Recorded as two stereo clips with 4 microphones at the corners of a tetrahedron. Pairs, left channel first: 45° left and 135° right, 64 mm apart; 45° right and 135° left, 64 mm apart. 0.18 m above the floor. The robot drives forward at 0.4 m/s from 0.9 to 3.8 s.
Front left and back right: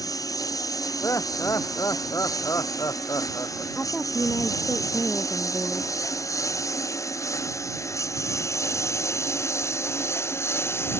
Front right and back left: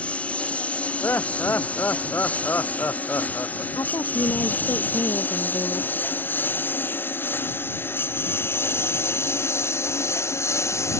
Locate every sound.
0.0 s a lawn mower: 25° left; by 11.0 s 5° right
1.0 s laughter: 10° left
3.8 s a woman speaking: 25° right